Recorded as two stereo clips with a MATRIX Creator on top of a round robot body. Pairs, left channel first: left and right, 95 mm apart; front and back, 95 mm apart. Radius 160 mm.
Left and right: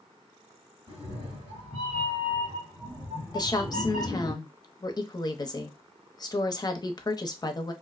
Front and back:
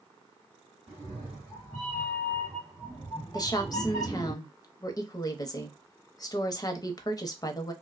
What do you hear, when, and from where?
0.9 s a cat meowing: 85° right, 1.6 m; by 4.3 s 65° left, 0.8 m
3.3 s a woman speaking: 45° left, 0.7 m